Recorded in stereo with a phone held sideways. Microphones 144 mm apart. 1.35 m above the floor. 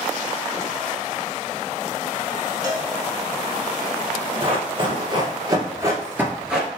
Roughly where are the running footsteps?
Right.